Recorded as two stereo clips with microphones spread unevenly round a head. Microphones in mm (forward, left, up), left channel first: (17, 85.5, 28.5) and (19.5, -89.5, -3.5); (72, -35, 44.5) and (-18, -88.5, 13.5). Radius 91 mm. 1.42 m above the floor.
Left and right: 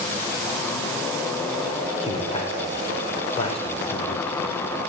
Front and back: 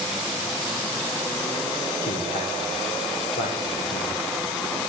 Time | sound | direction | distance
2.0 | a man speaking | 30° left | 5.5 m